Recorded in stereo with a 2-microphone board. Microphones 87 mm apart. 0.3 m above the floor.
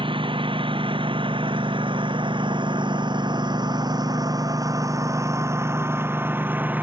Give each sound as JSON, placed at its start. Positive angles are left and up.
{"t": 0.0, "sound": "a lawn mower", "side_deg": -90}